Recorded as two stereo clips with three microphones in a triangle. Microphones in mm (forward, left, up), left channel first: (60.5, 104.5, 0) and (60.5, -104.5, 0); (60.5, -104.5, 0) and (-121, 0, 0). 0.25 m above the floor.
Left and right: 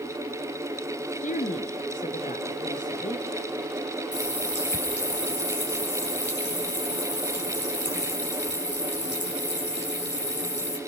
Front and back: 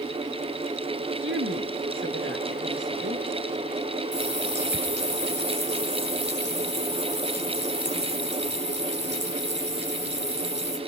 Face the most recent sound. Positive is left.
turn(degrees=120)